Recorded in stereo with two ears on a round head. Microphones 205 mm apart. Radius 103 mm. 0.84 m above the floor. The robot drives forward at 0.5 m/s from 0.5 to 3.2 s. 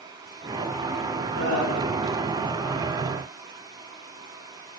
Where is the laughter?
75° right (ahead or behind), 3.5 m; by 1.9 s 80° right, 3.5 m.